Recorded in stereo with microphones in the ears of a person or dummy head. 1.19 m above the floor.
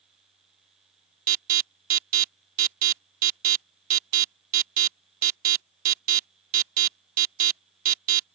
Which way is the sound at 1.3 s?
45° right (ahead or behind).